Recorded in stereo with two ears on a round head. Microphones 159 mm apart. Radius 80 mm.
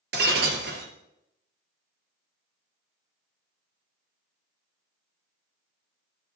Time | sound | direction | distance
0.1 | breaking glass | 60° right (ahead or behind) | 2.5 m